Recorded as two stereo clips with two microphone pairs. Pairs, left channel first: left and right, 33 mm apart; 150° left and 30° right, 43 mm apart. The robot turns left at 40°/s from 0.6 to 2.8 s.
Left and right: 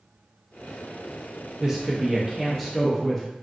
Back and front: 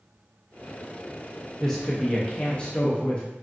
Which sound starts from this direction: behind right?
A woman speaking, at 1.6 s.